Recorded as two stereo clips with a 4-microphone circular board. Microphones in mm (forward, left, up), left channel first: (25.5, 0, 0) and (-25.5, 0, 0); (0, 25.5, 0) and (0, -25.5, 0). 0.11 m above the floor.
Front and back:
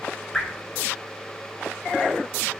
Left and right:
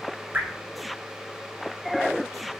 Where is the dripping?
65° right, 0.7 m.